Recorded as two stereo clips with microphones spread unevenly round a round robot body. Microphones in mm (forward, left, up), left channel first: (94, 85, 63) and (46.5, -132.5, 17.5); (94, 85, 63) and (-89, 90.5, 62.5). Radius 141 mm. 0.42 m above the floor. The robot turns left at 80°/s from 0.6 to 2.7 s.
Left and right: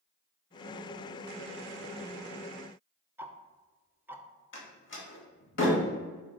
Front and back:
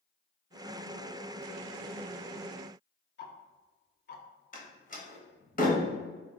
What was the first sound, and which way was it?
Ticking, 25° right.